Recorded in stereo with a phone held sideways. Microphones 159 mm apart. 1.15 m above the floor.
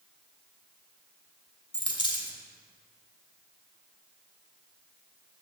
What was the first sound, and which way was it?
A dropped coin, 30° left (ahead or behind).